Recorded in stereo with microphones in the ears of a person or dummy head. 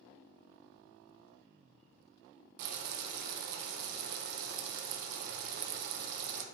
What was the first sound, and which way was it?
Boiling, 60° right (ahead or behind).